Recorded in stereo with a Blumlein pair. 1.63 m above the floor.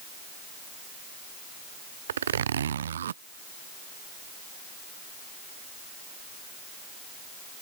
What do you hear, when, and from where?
2.1 s a zipper: 65° right